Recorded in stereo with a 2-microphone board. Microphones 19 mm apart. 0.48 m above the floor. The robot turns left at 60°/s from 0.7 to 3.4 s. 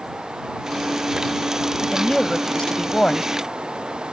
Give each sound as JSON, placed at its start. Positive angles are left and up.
{"t": 1.8, "sound": "a woman speaking", "azimuth_deg": 160}